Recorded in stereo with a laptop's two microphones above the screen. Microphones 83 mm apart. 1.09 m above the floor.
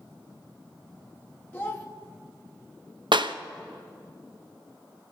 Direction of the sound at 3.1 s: 70° right (ahead or behind).